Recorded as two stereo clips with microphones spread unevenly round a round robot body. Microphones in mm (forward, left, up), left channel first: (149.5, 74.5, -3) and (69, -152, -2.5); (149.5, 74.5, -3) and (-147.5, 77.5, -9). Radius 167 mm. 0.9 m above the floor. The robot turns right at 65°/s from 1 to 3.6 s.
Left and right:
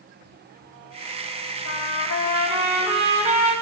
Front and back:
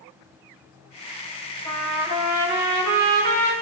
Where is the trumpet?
75° left, 4.5 m; by 3.5 s 160° right, 4.5 m.